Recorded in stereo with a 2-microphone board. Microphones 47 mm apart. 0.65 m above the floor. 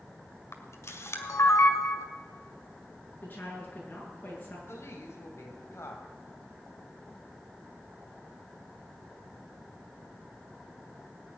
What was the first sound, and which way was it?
A camera shutter, 75° left (ahead or behind).